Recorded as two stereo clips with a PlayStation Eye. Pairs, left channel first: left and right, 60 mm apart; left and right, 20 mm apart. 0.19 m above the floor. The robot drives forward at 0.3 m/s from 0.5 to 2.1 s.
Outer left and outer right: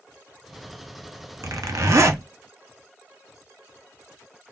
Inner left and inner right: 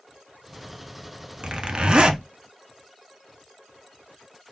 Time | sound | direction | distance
1.4 | a zipper | 65° right (ahead or behind) | 0.5 m